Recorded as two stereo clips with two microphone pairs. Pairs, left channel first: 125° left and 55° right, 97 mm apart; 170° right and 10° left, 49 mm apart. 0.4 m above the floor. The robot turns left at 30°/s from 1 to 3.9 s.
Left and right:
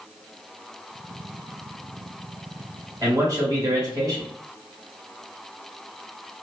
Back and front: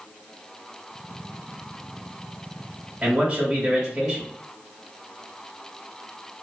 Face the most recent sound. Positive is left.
turn(degrees=-65)